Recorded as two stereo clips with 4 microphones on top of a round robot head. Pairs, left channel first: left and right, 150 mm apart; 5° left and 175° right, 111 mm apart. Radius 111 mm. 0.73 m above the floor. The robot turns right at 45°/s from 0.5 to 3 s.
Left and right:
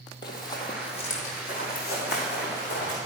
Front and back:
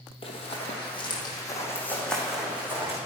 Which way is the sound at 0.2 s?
30° left.